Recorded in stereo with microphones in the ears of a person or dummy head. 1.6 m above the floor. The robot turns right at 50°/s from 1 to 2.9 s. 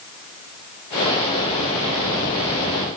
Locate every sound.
Only background noise.